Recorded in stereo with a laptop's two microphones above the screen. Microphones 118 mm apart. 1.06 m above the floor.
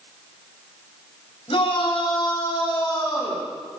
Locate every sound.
1.5 s a shout: 55° left (ahead or behind), 5.5 m; by 3.5 s 30° left (ahead or behind), 7.5 m